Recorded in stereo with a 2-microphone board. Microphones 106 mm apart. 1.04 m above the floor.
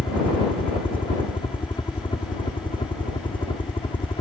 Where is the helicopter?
60° left (ahead or behind).